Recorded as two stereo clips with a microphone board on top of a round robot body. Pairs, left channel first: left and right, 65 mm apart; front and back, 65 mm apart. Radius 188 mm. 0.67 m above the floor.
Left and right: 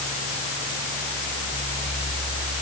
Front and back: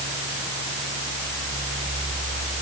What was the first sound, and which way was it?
Only background noise.